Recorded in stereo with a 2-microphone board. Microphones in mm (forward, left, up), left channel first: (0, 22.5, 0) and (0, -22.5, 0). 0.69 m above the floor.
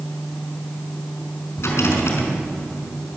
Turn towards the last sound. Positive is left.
turn(degrees=70)  # may be behind; listen again after turning